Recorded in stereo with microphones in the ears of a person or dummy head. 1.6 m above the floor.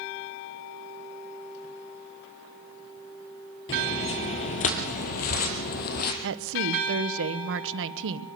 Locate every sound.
3.7 s footsteps: 30° left (ahead or behind), 1.8 m; by 6.1 s 55° left (ahead or behind), 3 m
6.2 s a woman speaking: 75° right (ahead or behind), 1.2 m